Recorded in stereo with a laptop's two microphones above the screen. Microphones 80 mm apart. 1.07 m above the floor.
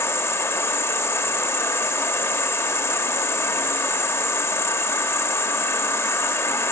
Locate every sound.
0.0 s an insect: 30° left (ahead or behind), 1.0 m